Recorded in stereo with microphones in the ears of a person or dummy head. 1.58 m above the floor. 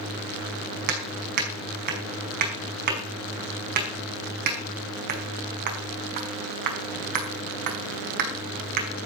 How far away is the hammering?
About 5 m.